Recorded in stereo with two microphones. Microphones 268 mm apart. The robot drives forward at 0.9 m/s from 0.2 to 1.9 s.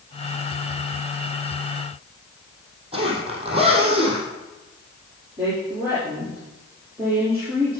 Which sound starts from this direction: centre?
A woman speaking, at 5.4 s.